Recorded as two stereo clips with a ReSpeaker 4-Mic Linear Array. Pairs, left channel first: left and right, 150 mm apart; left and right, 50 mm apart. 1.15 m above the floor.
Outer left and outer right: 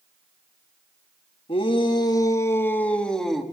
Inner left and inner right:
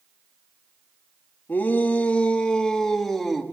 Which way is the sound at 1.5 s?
40° left (ahead or behind).